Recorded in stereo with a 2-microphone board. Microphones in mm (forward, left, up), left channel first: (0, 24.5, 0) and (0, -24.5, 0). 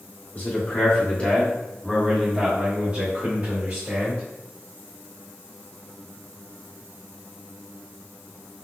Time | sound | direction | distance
0.3 | a man speaking | 40° left (ahead or behind) | 1.3 m